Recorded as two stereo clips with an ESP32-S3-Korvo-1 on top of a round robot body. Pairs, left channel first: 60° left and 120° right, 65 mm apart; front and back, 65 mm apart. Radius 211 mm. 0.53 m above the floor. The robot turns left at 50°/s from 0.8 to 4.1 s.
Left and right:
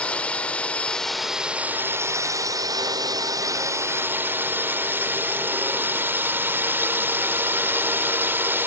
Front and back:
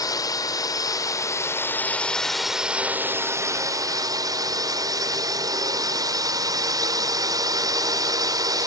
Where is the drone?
10° right; by 8.7 s 175° right.